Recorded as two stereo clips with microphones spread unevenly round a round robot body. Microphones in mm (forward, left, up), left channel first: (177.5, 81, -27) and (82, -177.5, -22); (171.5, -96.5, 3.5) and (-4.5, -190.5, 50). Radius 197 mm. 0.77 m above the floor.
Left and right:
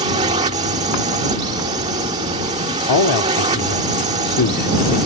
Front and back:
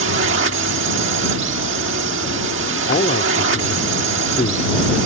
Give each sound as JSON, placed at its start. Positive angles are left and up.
{"t": 0.0, "sound": "a drone", "azimuth_deg": 180}
{"t": 2.9, "sound": "a man speaking", "azimuth_deg": 90}